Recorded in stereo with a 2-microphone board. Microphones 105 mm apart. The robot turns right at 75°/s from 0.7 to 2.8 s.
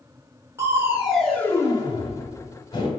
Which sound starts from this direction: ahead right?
Crushing, at 0.6 s.